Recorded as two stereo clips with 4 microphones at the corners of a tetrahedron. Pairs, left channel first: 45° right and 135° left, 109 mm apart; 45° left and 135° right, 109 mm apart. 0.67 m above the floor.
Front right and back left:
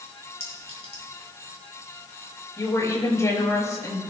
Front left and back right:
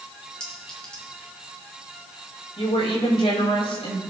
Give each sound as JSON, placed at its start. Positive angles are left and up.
{"t": 0.4, "sound": "a clink", "azimuth_deg": -35, "distance_m": 4.5}
{"t": 2.6, "sound": "a woman speaking", "azimuth_deg": 15, "distance_m": 5.0}